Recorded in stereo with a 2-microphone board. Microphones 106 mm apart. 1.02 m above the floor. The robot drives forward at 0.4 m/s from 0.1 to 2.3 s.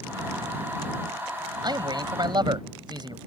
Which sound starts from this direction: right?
A man speaking, at 1.6 s.